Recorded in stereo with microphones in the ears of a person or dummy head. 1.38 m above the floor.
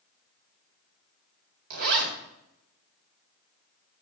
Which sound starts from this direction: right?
A zipper, at 1.7 s.